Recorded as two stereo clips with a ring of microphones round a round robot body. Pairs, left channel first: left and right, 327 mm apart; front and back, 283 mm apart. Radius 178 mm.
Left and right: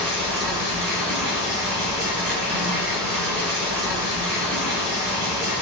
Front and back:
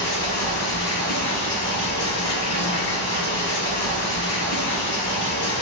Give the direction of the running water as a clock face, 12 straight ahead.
2 o'clock.